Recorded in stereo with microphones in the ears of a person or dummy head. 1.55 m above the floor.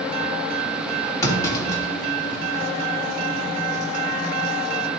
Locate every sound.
1.2 s a clunk: 15° left (ahead or behind), 2.5 m